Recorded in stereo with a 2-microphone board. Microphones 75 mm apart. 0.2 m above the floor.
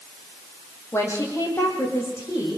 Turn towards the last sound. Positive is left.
turn(degrees=35)  # may be behind; listen again after turning